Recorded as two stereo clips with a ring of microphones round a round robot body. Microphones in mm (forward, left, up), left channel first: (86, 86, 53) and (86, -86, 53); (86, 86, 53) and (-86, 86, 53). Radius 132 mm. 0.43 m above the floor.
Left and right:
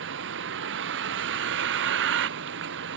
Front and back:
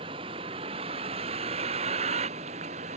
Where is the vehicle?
110° right; by 3.0 s 115° right.